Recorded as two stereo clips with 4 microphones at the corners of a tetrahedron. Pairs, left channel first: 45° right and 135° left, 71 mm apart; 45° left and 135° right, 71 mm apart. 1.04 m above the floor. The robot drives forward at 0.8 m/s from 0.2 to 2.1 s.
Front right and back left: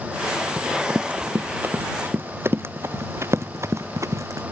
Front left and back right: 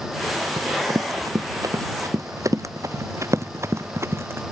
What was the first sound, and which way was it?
Running footsteps, 155° right.